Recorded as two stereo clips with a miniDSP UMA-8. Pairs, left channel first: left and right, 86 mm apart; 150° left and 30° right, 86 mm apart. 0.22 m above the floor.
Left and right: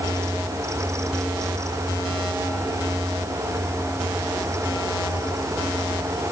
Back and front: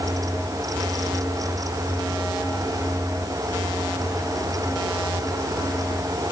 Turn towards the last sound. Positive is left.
No sound to turn to.